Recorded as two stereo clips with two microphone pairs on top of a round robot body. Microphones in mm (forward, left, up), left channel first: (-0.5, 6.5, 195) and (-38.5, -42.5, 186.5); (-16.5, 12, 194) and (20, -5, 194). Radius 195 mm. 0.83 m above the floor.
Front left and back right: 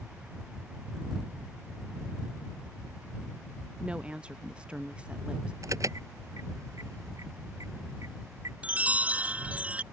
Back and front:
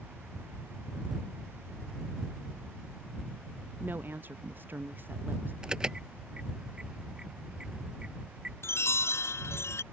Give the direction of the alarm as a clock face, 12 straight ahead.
3 o'clock.